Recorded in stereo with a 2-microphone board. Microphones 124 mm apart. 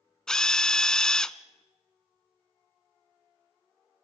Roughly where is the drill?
Centre.